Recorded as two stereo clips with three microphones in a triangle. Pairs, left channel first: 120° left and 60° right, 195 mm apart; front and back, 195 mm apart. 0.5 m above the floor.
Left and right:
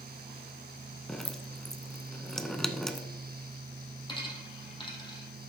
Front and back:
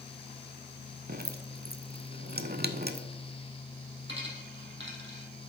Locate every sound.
1.1 s dripping: 155° right, 0.6 m
4.1 s a dropped coin: 175° right, 2 m